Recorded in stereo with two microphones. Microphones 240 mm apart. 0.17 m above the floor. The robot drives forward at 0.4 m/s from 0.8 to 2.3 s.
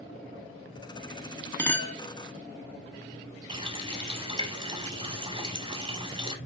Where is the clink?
10° left (ahead or behind), 0.7 m.